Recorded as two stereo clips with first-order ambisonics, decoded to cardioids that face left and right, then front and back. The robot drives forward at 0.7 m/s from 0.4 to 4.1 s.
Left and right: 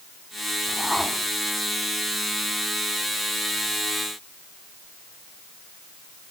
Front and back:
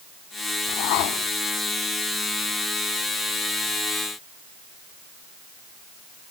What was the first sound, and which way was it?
A whoosh, straight ahead.